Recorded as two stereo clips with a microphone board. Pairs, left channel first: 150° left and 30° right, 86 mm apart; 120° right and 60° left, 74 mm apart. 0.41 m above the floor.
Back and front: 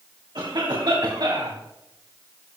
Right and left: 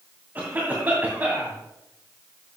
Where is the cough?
Straight ahead, 2.5 m.